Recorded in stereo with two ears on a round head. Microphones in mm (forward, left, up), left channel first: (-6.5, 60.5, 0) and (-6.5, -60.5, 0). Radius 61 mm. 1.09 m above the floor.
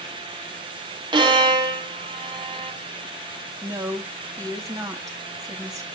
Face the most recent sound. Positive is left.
turn(degrees=-25)  # may be behind; listen again after turning